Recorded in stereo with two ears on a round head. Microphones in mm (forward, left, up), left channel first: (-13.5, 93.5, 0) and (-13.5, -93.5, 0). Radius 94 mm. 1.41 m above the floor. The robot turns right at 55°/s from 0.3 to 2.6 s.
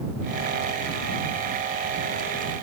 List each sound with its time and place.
Only background noise.